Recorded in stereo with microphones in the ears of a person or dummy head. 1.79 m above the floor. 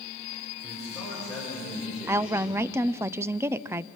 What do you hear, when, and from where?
0.6 s a man speaking: centre (ahead or behind), 7 m; by 2.6 s 10° right (ahead or behind), 6.5 m
2.1 s a woman speaking: 10° right (ahead or behind), 0.6 m